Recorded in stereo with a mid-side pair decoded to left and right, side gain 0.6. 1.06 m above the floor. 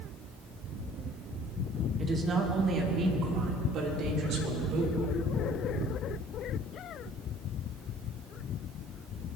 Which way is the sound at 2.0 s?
30° right.